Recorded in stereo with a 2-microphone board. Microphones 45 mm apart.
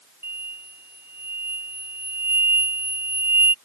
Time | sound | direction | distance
0.2 | an explosion | 60° right (ahead or behind) | ?